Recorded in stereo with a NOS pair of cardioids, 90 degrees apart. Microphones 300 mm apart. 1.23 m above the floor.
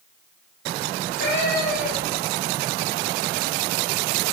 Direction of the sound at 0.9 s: 35° left.